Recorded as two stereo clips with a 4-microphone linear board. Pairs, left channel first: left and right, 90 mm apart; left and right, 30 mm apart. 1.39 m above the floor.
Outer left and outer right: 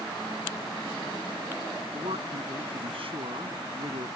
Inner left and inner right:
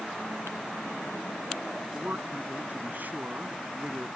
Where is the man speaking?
85° right.